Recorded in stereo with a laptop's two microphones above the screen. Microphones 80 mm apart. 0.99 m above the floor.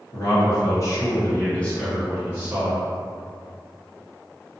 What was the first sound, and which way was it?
A man speaking, 60° left (ahead or behind).